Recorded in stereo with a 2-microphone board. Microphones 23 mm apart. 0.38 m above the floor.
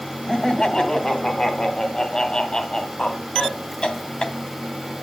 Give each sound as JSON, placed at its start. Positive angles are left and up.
{"t": 0.3, "sound": "laughter", "side_deg": 35, "distance_m": 2.0}